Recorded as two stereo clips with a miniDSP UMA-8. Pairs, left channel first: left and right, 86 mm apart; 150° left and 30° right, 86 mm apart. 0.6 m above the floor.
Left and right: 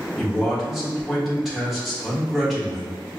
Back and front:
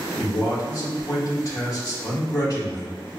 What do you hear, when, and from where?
0.2 s a man speaking: straight behind, 1.2 m